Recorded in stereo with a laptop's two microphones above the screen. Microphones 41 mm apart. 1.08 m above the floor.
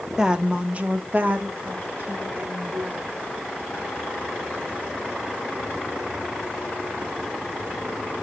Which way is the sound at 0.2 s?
15° right (ahead or behind).